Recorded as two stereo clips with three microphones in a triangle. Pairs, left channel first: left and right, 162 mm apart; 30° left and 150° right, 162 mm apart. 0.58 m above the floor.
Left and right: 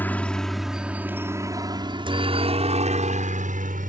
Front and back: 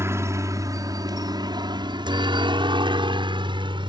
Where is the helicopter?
155° left; by 3.9 s 95° right.